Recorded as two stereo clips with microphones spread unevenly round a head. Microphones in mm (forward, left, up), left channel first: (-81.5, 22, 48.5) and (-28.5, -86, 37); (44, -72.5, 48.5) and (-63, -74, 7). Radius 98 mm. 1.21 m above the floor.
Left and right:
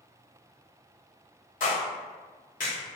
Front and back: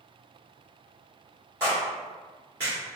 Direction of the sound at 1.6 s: 115° left.